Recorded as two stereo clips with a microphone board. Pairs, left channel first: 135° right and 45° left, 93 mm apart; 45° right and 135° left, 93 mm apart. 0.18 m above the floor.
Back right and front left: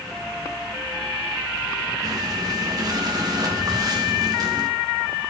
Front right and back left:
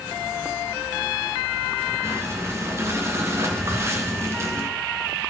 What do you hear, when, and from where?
2.0 s breathing: 80° left, 3 m